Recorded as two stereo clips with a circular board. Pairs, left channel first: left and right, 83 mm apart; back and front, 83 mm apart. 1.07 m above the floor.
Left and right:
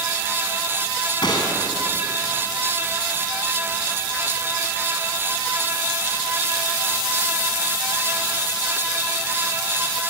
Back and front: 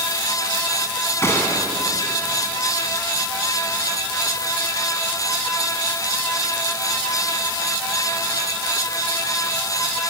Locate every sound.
1.2 s a gunshot: 120° left, 4 m